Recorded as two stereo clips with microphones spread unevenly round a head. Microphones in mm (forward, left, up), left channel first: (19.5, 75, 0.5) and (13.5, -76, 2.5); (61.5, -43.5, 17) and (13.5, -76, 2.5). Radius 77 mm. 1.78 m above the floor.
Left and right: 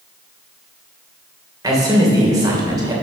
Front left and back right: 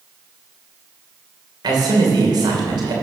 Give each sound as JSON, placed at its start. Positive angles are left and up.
{"t": 1.6, "sound": "a man speaking", "azimuth_deg": -165, "distance_m": 2.5}